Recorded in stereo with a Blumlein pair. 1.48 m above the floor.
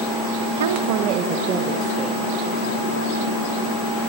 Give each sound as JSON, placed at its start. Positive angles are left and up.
{"t": 0.6, "sound": "a woman speaking", "azimuth_deg": -60, "distance_m": 1.1}